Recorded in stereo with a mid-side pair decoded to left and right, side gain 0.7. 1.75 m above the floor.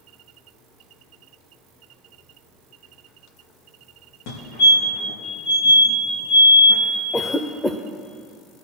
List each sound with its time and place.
4.3 s a fire alarm: 65° left, 5 m
7.1 s a cough: 5° left, 0.8 m